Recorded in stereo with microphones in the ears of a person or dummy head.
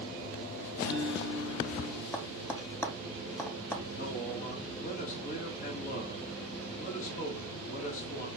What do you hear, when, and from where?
0.8 s a guitar: 60° left (ahead or behind), 3 m
2.1 s tapping: 15° left (ahead or behind), 0.7 m
3.9 s a man speaking: 45° left (ahead or behind), 1.6 m